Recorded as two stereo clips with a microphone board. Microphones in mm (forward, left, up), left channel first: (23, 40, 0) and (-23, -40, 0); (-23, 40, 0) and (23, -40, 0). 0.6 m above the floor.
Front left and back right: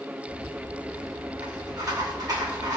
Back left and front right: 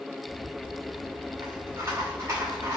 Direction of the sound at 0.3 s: 105° right.